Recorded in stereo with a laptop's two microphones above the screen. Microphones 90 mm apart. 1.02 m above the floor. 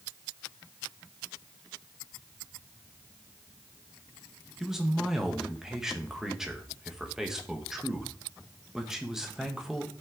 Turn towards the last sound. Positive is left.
turn(degrees=-5)  # may be behind; listen again after turning